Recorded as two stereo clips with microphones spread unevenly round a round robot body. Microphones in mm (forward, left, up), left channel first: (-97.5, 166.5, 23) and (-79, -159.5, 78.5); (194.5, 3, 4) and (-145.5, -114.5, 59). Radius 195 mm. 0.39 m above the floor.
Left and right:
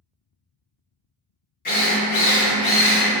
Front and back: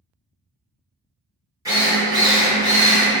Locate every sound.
1.6 s a drill: 110° left, 1.4 m